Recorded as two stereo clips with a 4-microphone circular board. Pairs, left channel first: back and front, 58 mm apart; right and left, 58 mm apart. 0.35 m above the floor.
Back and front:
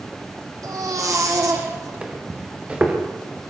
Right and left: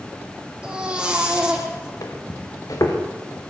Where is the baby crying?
15° left, 7.5 m.